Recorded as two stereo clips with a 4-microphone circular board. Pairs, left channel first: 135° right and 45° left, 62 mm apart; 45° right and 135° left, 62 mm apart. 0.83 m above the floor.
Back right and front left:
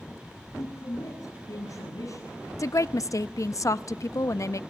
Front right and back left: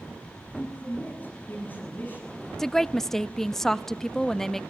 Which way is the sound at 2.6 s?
130° right.